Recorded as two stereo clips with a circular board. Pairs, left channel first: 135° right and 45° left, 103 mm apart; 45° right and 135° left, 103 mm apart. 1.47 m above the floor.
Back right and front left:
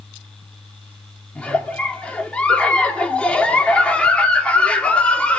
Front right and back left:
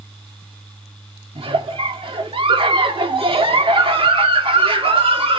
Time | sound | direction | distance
1.4 | a giggle | 145° left | 1.8 m